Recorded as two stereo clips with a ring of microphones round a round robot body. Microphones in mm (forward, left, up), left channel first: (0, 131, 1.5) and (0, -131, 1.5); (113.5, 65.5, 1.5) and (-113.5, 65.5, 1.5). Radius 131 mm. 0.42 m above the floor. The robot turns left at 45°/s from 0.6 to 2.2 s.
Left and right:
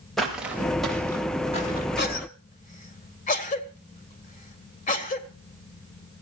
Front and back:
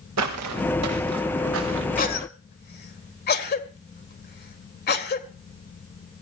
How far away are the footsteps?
About 4.5 m.